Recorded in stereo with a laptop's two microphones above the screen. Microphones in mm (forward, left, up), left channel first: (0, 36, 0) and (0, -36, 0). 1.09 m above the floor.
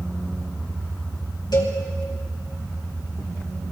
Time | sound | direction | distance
1.5 | a cowbell | 75° left (ahead or behind) | 3 m